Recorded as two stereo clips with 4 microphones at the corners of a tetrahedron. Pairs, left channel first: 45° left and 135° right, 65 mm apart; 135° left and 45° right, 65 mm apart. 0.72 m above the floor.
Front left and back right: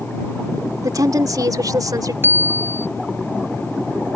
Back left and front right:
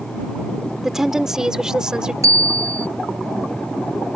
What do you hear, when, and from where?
0.8 s a woman speaking: 130° right; by 2.1 s 125° right
2.2 s a bicycle bell: 80° right